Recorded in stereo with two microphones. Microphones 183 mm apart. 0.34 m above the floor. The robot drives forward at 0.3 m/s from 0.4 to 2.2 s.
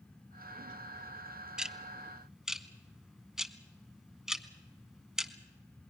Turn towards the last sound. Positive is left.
turn(degrees=-5)  # may be behind; listen again after turning